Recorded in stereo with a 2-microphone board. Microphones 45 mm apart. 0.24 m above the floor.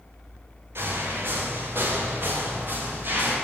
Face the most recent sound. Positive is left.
turn(degrees=-50)  # may be behind; listen again after turning